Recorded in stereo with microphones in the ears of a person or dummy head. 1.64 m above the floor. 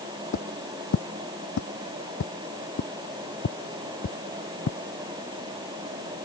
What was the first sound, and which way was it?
Footsteps, 70° left (ahead or behind).